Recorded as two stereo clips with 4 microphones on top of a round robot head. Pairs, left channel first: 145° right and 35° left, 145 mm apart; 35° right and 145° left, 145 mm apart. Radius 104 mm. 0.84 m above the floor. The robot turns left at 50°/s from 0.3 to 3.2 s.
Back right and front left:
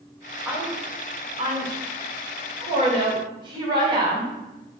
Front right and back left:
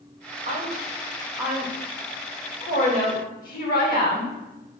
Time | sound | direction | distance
0.5 | a woman speaking | 115° left | 1.2 m